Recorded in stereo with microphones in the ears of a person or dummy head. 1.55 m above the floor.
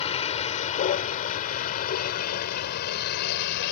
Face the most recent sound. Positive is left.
turn(degrees=55)  # may be behind; listen again after turning